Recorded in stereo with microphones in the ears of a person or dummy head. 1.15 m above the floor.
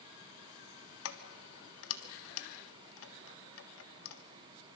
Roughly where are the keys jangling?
Left.